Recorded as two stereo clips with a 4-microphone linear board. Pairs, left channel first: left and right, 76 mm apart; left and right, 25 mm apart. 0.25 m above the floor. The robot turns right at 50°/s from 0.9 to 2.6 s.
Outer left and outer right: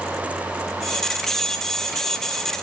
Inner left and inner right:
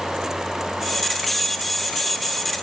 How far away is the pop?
I don't hear a pop.